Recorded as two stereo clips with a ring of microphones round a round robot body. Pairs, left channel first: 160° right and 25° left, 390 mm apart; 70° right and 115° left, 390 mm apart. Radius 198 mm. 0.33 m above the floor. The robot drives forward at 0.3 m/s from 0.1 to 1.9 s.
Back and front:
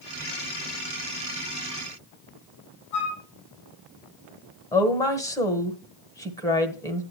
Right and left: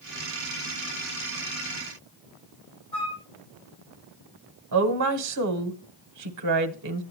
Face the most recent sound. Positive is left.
turn(degrees=125)